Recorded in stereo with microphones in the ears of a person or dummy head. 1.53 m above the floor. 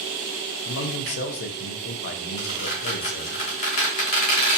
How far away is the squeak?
About 0.9 m.